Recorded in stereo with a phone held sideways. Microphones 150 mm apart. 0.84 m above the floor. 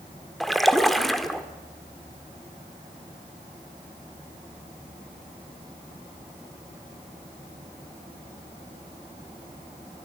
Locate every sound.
0.4 s a splash: centre (ahead or behind), 1.7 m